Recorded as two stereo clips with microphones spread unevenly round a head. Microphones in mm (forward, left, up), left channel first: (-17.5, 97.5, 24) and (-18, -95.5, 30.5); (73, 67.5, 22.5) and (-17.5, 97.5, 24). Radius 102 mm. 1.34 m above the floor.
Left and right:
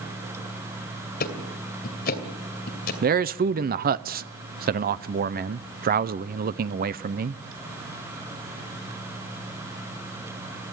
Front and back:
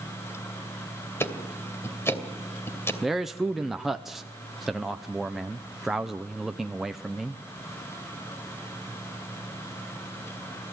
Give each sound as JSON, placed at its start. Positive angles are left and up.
{"t": 1.2, "sound": "ticking", "azimuth_deg": 45, "distance_m": 2.5}
{"t": 3.0, "sound": "a man speaking", "azimuth_deg": -110, "distance_m": 0.6}